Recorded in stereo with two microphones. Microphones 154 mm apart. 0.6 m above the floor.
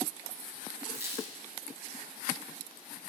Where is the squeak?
20° right (ahead or behind), 1.1 m.